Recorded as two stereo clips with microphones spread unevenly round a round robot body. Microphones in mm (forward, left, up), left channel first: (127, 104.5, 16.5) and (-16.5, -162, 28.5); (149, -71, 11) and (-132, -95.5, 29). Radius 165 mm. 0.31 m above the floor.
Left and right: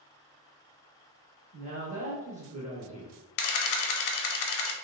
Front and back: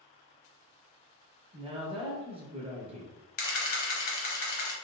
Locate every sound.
1.5 s a woman speaking: 135° right, 0.9 m
3.4 s a camera shutter: 65° left, 0.6 m